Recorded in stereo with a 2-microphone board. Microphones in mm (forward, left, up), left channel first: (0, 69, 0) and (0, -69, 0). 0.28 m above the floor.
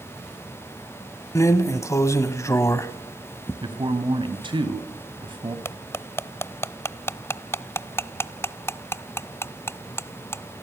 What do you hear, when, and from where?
1.4 s a drawer: 20° left (ahead or behind), 1.1 m
3.6 s a man speaking: 35° right (ahead or behind), 2.5 m
5.7 s cutlery clinking: 20° left (ahead or behind), 0.6 m